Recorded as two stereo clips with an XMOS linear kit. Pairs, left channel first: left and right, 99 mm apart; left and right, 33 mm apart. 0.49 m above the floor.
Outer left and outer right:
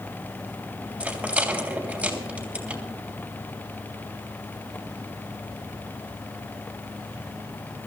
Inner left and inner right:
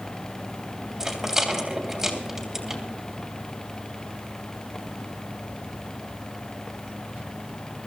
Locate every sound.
1.0 s a rattle: 10° right (ahead or behind), 2.5 m